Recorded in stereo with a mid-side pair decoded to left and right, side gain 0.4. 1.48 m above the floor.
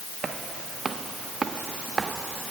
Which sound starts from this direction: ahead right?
Footsteps, at 0.2 s.